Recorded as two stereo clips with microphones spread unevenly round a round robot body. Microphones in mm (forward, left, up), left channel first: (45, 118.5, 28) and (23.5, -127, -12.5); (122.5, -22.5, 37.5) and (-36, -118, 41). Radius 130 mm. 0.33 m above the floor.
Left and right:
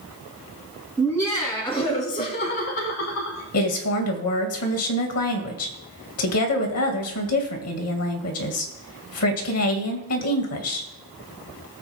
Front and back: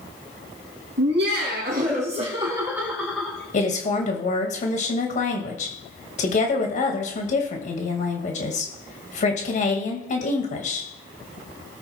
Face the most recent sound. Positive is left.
turn(degrees=75)